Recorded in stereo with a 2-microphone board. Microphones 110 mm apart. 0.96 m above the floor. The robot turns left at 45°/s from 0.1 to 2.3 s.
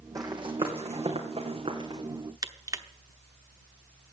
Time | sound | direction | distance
0.1 | running footsteps | 35° right (ahead or behind) | 2.5 m
2.4 | crushing | 30° right (ahead or behind) | 0.9 m